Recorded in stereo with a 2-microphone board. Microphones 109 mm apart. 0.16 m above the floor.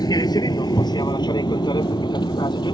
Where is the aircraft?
35° left (ahead or behind); by 2.7 s 40° left (ahead or behind).